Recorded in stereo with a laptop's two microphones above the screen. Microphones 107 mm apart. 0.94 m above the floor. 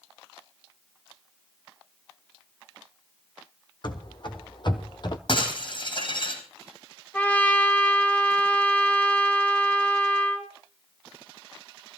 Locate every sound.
3.8 s running footsteps: 45° left (ahead or behind), 2 m; by 5.2 s 40° left (ahead or behind), 1.2 m
5.3 s breaking glass: 55° left (ahead or behind), 4 m
7.1 s a trumpet: 15° left (ahead or behind), 1.4 m